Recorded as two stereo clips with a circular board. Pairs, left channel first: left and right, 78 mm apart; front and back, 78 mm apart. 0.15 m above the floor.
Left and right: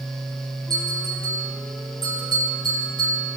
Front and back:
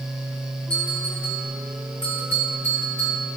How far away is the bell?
About 5.5 m.